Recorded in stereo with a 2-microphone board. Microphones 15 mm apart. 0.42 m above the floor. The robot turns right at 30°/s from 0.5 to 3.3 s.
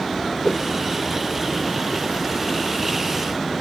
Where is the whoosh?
50° left (ahead or behind); by 0.6 s 45° left (ahead or behind).